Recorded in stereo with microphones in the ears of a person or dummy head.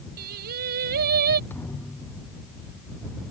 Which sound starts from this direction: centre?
A thud, at 1.5 s.